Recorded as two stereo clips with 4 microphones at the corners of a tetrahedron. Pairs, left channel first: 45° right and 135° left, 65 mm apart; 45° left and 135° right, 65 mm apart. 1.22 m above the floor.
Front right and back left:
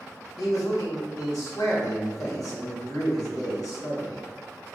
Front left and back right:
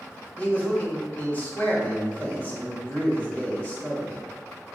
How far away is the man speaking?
About 1.3 m.